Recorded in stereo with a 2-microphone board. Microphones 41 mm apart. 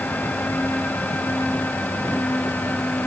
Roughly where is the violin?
No violin in this recording.